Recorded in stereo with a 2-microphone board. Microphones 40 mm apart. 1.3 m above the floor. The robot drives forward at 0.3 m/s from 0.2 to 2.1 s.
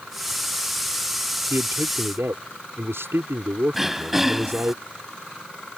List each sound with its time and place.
1.5 s a man speaking: 80° right
3.7 s throat clearing: 5° right (ahead or behind)